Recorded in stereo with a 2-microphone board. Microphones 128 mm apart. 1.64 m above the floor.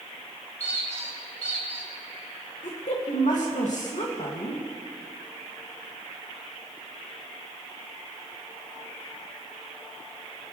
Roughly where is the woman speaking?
Left.